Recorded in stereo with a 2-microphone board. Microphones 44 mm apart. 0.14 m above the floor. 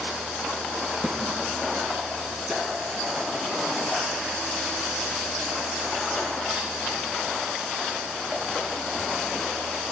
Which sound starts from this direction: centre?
A snare drum, at 1.0 s.